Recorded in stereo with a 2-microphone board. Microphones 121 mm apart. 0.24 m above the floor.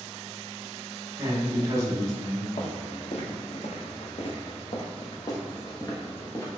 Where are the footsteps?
80° left, 1.5 m; by 6.5 s 20° left (ahead or behind), 2 m.